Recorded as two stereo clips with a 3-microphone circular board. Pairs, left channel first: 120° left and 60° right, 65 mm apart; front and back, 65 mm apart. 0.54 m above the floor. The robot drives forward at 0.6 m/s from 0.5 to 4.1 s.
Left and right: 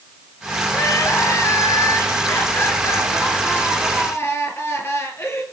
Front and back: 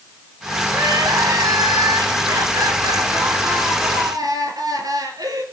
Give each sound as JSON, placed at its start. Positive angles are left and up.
{"t": 0.7, "sound": "crying", "azimuth_deg": 160, "distance_m": 1.1}